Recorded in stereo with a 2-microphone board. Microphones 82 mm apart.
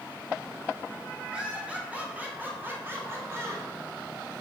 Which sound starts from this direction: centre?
Laughter, at 1.3 s.